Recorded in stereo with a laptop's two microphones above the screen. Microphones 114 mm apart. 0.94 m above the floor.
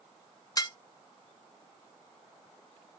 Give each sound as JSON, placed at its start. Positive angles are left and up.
{"t": 0.6, "sound": "dishes clattering", "side_deg": 30, "distance_m": 1.0}